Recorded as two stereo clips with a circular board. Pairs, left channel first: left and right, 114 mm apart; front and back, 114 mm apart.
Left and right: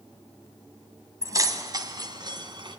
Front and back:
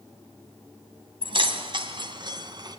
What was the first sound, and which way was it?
Keys jangling, 145° right.